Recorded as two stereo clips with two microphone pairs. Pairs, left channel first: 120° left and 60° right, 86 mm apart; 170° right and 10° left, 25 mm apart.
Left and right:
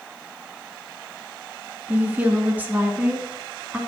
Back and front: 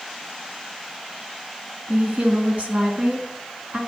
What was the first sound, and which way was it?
A woman speaking, 10° left.